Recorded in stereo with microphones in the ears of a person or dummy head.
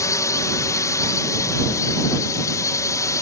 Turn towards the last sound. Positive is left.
turn(degrees=20)  # may be behind; listen again after turning